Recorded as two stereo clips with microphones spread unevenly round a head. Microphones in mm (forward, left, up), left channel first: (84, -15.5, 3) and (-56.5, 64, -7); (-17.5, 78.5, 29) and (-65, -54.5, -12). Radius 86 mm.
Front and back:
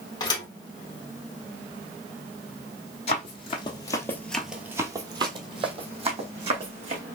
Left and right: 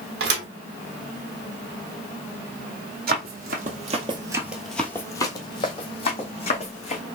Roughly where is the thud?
Right.